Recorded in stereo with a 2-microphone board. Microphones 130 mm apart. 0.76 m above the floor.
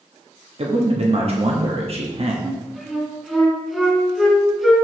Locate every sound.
0.6 s a man speaking: 50° right (ahead or behind), 1.3 m
2.4 s a flute: centre (ahead or behind), 1.6 m